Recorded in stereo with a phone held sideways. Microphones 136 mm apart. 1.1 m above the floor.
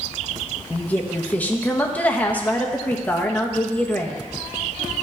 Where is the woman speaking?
10° left (ahead or behind), 1.1 m.